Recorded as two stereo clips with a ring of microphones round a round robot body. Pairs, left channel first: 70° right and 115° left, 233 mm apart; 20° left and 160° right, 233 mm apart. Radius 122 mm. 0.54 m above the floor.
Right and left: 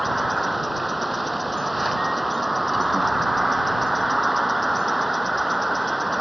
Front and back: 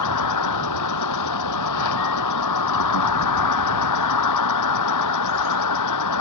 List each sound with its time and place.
0.0 s an insect: 25° left